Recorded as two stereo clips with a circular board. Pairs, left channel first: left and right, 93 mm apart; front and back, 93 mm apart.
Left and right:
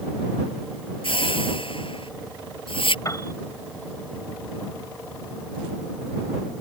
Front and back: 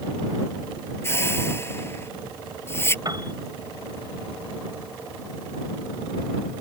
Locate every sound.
1.0 s a whoosh: 65° left
3.0 s a piano: 140° left